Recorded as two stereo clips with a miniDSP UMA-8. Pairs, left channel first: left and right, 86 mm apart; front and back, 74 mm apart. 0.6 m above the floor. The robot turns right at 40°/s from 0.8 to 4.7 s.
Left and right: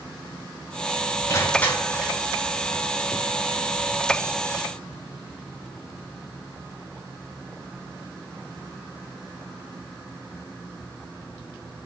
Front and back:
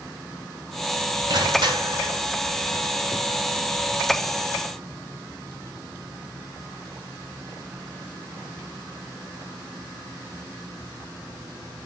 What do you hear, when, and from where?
1.3 s crushing: 150° left, 3.5 m; by 2.2 s 175° right, 3.5 m